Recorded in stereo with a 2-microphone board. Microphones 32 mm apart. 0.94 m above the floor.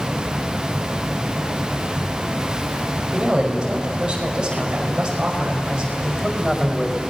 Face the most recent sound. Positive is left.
turn(degrees=5)  # may be behind; listen again after turning